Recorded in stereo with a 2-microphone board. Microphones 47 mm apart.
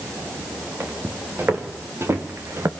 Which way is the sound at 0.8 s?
55° right (ahead or behind).